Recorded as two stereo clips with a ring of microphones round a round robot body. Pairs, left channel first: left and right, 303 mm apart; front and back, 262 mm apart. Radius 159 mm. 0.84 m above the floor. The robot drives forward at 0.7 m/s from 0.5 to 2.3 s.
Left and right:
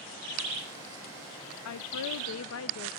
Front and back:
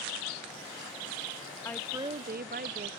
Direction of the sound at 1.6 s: 80° left.